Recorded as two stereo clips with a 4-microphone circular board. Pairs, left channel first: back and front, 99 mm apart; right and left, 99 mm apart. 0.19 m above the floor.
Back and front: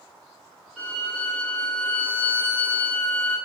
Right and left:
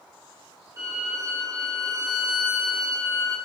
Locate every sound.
0.8 s a violin: 80° left, 1.8 m